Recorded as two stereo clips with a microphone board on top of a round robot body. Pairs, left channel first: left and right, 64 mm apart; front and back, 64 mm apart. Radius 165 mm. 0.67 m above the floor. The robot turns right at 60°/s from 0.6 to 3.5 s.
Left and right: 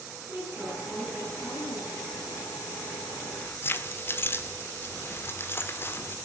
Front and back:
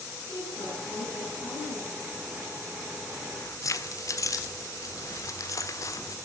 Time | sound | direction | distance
0.3 | a woman speaking | 30° right | 9.5 m
3.2 | keys jangling | 15° left | 1.7 m